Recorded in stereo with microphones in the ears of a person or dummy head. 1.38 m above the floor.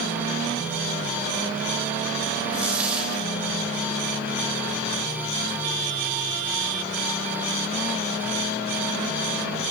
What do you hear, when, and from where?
2.5 s a dropped coin: 5° right (ahead or behind), 3 m